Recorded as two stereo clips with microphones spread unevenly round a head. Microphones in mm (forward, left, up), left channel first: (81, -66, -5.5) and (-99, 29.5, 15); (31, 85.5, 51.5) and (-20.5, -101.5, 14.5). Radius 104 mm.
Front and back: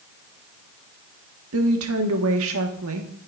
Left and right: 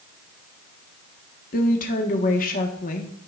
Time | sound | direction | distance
1.5 | a woman speaking | 125° left | 1.3 m